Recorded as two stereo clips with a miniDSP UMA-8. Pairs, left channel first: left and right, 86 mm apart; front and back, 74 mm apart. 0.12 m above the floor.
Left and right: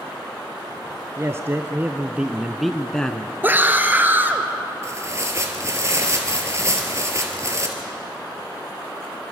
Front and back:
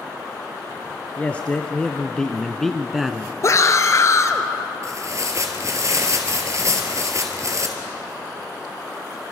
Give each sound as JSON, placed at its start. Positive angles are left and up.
{"t": 1.2, "sound": "a man speaking", "azimuth_deg": -60, "distance_m": 1.3}
{"t": 3.4, "sound": "a scream", "azimuth_deg": -30, "distance_m": 1.8}
{"t": 4.8, "sound": "tearing paper", "azimuth_deg": -140, "distance_m": 2.5}